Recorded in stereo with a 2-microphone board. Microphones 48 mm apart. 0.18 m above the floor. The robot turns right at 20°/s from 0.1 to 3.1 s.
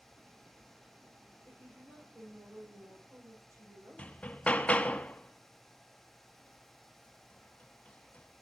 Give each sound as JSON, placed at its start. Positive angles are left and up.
{"t": 1.5, "sound": "a woman speaking", "azimuth_deg": -125, "distance_m": 8.5}
{"t": 4.0, "sound": "hammering", "side_deg": 25, "distance_m": 0.6}